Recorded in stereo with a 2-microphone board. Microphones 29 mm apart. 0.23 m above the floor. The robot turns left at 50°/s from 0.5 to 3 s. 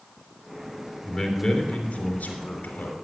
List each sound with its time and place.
1.1 s a man speaking: straight behind, 3 m; by 2.9 s 85° left, 3 m